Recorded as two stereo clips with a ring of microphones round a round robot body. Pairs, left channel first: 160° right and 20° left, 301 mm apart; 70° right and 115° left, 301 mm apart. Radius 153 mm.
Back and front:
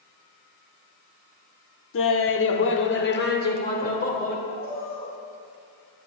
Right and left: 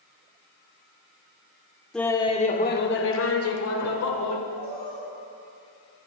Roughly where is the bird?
Behind left.